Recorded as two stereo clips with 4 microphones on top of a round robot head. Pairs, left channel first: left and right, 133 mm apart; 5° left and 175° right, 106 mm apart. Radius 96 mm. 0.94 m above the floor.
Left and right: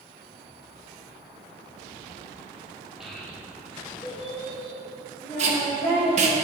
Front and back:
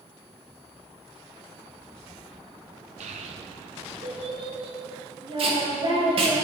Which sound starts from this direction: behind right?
Tape being pulled, at 5.4 s.